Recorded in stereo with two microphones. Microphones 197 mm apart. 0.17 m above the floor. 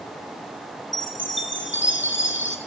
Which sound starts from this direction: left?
A chime, at 0.9 s.